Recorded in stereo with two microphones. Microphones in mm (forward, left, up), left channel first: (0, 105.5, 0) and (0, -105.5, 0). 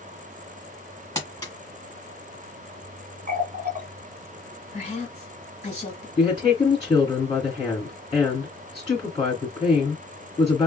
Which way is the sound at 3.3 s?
40° right (ahead or behind).